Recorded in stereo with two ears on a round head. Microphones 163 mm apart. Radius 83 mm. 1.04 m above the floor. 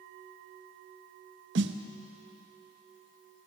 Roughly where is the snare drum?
Right.